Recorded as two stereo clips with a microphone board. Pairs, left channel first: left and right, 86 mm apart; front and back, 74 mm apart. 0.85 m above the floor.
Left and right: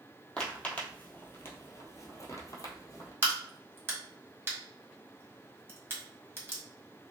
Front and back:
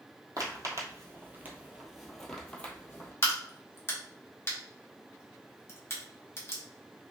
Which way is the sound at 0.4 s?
165° left.